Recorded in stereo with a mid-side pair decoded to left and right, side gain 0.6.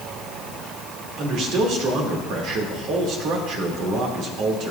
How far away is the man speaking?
About 3 m.